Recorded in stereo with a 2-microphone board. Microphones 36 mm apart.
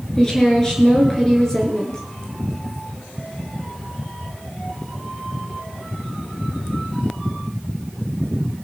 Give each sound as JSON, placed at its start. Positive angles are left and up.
{"t": 0.2, "sound": "a woman speaking", "side_deg": 15, "distance_m": 3.0}